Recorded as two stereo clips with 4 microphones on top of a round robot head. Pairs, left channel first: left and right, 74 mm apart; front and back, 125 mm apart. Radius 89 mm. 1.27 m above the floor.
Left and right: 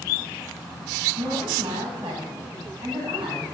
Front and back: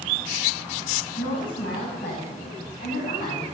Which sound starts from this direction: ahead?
A woman speaking, at 1.2 s.